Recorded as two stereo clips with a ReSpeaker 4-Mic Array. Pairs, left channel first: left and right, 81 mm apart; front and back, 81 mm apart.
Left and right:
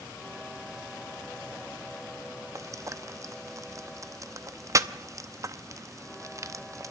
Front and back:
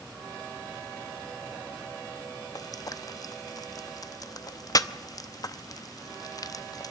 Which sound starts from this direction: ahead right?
Frying, at 2.5 s.